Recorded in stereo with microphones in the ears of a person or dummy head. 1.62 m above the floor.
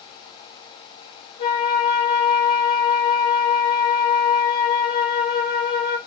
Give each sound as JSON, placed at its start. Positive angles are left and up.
{"t": 1.4, "sound": "a flute", "side_deg": 25, "distance_m": 0.7}